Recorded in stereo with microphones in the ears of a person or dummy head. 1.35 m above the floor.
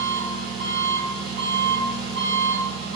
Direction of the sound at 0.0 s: 50° right (ahead or behind).